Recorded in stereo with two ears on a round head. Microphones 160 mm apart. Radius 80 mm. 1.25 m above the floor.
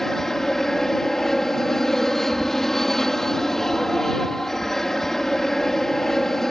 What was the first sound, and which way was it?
An aircraft, 5° left (ahead or behind).